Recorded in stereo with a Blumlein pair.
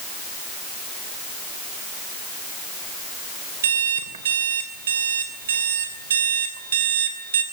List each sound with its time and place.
3.6 s an alarm clock: 65° right, 3 m